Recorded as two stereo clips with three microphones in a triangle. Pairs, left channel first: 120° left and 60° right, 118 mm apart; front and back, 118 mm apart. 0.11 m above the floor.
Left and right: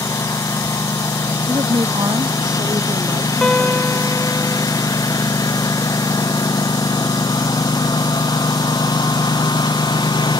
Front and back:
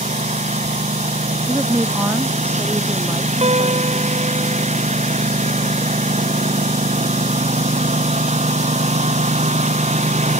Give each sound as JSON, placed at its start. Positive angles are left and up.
{"t": 0.0, "sound": "a lawn mower", "azimuth_deg": 180}
{"t": 1.5, "sound": "a woman speaking", "azimuth_deg": -110}
{"t": 3.4, "sound": "a guitar", "azimuth_deg": -155}